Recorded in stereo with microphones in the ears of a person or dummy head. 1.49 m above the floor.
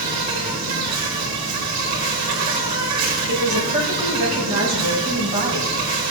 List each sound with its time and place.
0.0 s an insect: 55° right (ahead or behind), 3 m
3.3 s a woman speaking: 45° right (ahead or behind), 4 m